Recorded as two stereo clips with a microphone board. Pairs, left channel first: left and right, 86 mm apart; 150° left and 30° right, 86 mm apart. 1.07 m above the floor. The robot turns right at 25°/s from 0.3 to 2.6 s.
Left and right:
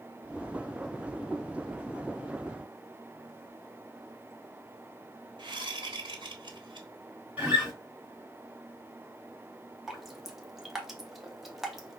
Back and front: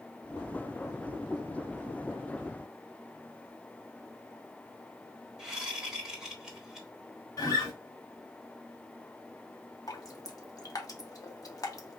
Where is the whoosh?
110° right, 1.1 m.